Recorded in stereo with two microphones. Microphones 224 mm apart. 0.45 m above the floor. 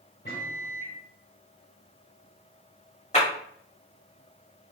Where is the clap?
30° left (ahead or behind), 1.7 m.